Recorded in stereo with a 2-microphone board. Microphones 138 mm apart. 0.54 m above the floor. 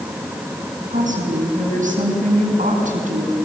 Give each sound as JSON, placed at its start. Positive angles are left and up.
{"t": 0.9, "sound": "a woman speaking", "side_deg": -70, "distance_m": 5.5}